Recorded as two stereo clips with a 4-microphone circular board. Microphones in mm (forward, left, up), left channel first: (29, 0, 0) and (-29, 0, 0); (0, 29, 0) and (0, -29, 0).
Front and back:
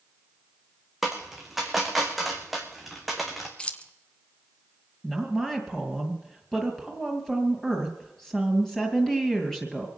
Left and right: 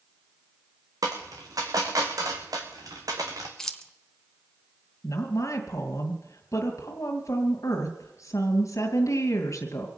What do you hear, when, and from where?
1.0 s a dropped coin: 90° right, 2 m
3.6 s keys jangling: 25° left, 0.9 m
5.0 s a woman speaking: 80° left, 2.5 m